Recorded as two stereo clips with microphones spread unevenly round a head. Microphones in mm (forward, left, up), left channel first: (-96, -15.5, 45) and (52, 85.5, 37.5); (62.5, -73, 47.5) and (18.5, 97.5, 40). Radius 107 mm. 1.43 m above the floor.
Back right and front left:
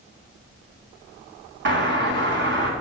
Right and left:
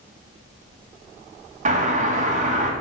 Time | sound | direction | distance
1.6 | a doorbell | 55° left | 2.5 m